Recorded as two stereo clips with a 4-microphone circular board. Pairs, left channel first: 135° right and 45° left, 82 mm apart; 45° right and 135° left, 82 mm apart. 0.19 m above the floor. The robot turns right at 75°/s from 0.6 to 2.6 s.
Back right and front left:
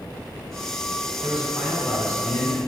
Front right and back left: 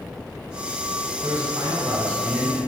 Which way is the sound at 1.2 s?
115° left.